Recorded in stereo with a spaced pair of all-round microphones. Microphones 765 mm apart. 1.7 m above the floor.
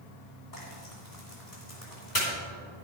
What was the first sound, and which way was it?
Frying, 60° left (ahead or behind).